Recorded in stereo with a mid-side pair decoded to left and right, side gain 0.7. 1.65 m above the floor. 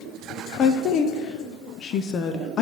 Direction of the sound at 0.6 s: 40° left.